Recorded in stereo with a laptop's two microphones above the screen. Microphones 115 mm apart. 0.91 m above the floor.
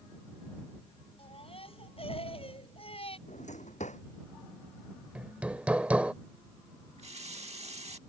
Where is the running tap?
60° right (ahead or behind).